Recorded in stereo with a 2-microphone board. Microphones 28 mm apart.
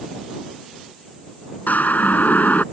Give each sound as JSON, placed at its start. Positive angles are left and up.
{"t": 1.7, "sound": "a siren", "side_deg": 80}